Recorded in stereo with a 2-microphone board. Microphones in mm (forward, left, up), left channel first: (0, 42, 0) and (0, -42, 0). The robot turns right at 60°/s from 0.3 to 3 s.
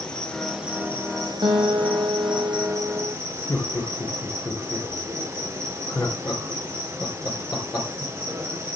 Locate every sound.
0.0 s an insect: 170° left, 2.5 m; by 8.8 s 30° right, 2.5 m
1.4 s a guitar: 110° right, 2.5 m; by 3.1 s 15° right, 2.5 m
3.5 s laughter: 45° left (ahead or behind), 2.5 m